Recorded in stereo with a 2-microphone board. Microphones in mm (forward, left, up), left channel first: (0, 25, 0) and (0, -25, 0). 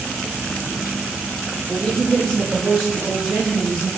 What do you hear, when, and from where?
1.7 s a woman speaking: 15° left (ahead or behind), 0.5 m; by 3.9 s 5° right (ahead or behind), 2.5 m